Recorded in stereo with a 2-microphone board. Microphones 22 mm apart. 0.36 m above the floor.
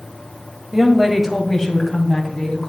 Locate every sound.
0.7 s a woman speaking: 15° right (ahead or behind), 1.3 m; by 2.7 s 30° left (ahead or behind), 2.5 m